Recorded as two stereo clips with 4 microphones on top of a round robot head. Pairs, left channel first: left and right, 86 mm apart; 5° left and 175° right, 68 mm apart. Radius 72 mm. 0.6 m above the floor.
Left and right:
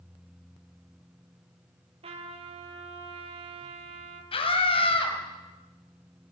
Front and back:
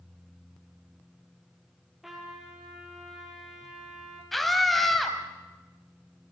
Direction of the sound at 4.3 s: 90° left.